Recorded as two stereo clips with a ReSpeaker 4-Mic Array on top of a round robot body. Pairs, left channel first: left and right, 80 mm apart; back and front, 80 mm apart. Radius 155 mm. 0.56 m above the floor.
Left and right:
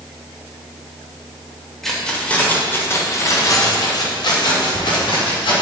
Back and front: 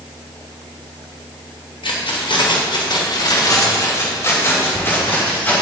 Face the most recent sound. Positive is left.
turn(degrees=110)